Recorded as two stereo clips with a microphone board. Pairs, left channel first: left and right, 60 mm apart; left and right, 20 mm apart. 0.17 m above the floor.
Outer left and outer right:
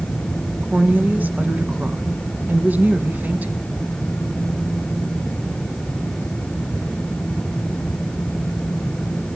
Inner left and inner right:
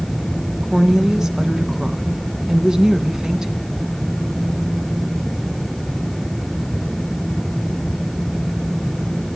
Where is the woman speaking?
30° right (ahead or behind), 1.9 m.